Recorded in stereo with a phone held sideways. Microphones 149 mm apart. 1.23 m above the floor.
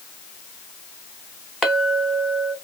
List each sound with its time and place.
1.6 s a clink: 5° left (ahead or behind), 1.2 m